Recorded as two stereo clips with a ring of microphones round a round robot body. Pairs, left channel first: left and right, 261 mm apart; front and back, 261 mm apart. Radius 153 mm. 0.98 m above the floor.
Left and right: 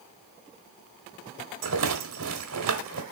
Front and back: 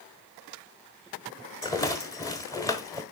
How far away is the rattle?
About 1.0 m.